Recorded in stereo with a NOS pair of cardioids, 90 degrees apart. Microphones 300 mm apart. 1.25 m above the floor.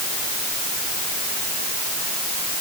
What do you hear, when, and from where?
Only background noise.